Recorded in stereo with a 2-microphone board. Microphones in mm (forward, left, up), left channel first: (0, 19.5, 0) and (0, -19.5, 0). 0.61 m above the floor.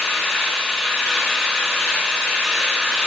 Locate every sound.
0.0 s an engine running: 5° left (ahead or behind), 1.9 m